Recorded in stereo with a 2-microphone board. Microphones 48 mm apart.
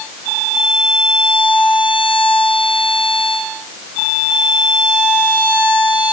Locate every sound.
Only background noise.